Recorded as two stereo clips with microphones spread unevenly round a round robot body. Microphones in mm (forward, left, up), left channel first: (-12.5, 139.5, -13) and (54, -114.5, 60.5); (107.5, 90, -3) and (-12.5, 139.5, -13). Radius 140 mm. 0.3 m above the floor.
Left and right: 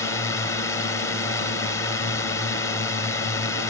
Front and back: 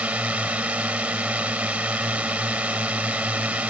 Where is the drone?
90° left.